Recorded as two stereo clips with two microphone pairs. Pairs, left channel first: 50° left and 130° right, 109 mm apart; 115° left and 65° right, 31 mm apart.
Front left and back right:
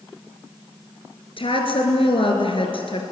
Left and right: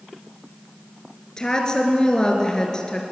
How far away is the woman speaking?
About 3 m.